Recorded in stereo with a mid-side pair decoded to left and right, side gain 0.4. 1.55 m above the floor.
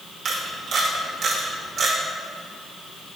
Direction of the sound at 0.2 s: 65° right.